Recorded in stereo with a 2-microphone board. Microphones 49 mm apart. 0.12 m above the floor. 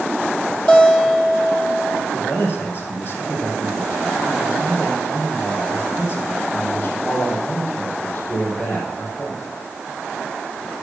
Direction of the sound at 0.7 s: 30° left (ahead or behind).